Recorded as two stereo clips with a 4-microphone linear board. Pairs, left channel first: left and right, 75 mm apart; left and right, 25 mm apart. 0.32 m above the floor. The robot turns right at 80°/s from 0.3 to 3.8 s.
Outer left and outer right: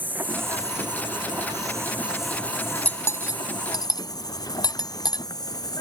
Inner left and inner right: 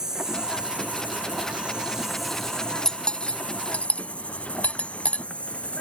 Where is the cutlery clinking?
20° left (ahead or behind); by 5.2 s 70° left (ahead or behind).